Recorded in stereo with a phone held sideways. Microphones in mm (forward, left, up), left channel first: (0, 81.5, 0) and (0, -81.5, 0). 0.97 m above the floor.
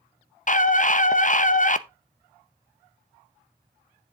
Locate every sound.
0.5 s a scream: 50° left (ahead or behind), 0.6 m